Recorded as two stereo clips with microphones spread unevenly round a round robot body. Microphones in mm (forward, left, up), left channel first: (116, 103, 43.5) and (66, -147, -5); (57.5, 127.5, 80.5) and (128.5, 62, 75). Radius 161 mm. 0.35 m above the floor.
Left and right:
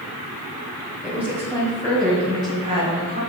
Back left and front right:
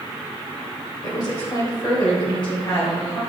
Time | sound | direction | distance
1.0 | a woman speaking | straight behind | 1.8 m